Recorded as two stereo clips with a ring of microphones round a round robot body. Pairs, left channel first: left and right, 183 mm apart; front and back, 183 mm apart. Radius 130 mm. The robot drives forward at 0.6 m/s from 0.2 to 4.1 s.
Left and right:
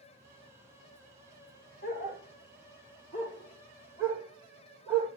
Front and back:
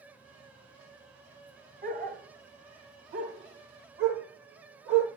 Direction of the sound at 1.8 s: 150° left.